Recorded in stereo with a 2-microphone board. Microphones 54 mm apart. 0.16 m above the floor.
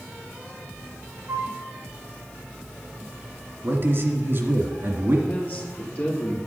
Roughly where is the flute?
Right.